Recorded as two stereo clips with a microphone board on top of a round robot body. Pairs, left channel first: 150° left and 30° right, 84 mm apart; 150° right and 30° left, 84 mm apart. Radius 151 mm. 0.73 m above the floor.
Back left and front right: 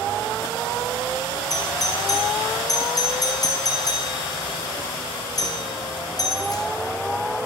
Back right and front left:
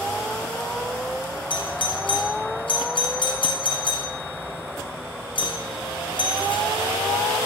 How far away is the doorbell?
About 6 m.